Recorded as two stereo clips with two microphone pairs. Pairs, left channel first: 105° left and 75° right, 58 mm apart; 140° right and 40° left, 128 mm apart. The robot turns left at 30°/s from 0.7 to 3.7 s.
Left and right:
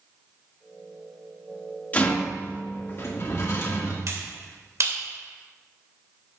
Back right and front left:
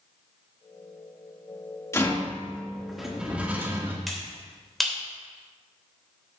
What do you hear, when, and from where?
1.9 s a rattle: 160° left, 1.8 m; by 4.0 s 105° left, 1.8 m
4.1 s a finger snap: 50° right, 2.5 m